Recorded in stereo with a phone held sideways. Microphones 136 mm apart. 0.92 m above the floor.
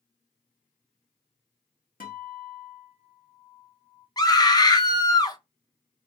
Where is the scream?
30° left (ahead or behind), 0.6 m.